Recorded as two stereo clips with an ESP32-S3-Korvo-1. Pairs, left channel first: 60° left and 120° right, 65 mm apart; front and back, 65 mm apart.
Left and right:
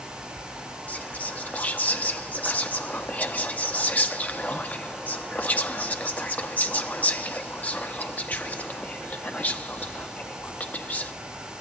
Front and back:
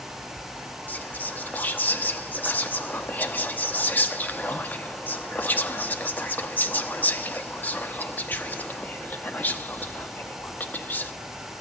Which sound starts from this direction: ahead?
Whispering, at 0.9 s.